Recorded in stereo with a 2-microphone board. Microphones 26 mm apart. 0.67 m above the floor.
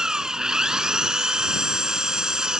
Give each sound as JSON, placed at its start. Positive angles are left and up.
{"t": 0.0, "sound": "an engine running", "side_deg": -25}